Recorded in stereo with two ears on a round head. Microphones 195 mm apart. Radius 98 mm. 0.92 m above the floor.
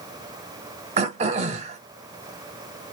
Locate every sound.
1.0 s throat clearing: 30° right (ahead or behind), 0.7 m